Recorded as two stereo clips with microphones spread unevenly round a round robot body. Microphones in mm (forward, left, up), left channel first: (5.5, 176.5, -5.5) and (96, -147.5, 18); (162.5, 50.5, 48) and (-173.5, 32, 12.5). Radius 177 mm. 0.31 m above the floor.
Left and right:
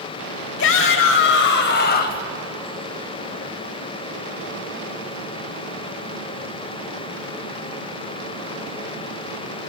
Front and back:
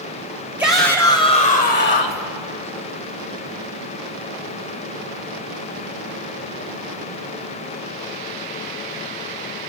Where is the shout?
105° left, 1.1 m; by 2.2 s 50° left, 1.4 m.